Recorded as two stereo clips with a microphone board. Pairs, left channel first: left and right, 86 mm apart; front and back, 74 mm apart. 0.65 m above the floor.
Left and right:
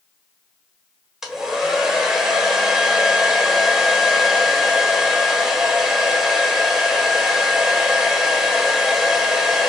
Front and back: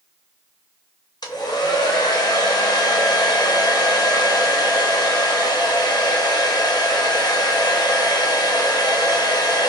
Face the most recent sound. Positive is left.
turn(degrees=-5)